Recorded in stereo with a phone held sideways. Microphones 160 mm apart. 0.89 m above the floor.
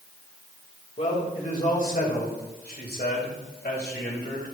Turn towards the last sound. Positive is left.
turn(degrees=75)  # may be behind; listen again after turning